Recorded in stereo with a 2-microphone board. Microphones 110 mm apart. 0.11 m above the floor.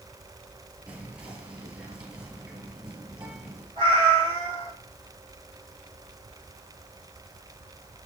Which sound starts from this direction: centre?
Whispering, at 0.9 s.